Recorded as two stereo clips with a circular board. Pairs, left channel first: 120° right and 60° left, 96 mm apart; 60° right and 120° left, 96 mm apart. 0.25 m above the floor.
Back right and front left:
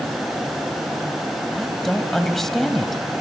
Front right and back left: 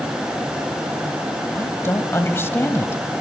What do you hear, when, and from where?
1.6 s a woman speaking: 35° right, 1.3 m